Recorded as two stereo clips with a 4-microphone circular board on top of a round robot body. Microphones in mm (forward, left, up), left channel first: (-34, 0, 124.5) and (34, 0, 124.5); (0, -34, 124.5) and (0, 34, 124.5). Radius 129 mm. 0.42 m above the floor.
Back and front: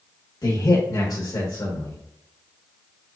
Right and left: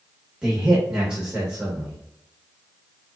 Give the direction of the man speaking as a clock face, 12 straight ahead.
7 o'clock.